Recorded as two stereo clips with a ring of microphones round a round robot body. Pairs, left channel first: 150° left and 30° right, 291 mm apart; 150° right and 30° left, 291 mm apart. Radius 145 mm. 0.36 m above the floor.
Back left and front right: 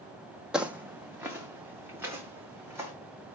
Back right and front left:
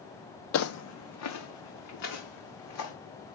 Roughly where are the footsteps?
Behind right.